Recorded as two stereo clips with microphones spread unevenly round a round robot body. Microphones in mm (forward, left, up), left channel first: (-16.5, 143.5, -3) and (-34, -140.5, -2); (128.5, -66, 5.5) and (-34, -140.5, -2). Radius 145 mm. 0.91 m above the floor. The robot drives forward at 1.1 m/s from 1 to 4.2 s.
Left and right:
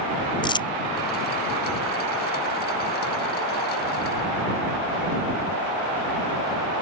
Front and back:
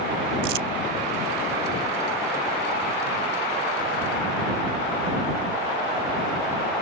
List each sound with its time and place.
0.4 s crumpling: 160° left